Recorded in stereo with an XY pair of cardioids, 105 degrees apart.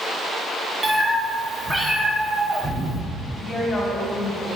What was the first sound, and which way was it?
A cat meowing, 15° right.